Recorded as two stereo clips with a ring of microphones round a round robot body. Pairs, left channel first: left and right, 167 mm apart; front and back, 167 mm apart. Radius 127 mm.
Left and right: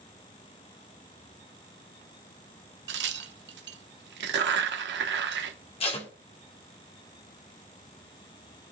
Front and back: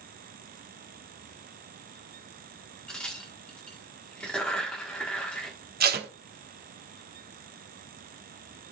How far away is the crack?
About 1.1 m.